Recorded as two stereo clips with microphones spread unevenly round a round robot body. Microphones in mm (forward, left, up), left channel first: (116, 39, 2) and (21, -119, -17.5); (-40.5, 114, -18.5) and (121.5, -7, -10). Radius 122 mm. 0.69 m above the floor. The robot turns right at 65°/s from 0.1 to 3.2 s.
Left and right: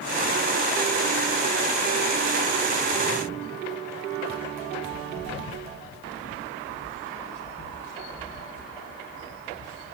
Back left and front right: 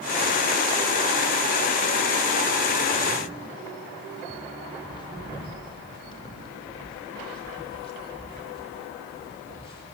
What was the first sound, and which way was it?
Footsteps, 75° left.